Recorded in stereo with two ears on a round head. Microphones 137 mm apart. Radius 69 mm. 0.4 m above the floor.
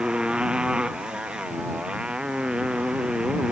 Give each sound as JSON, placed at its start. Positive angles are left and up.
{"t": 0.0, "sound": "a motorcycle", "side_deg": -5}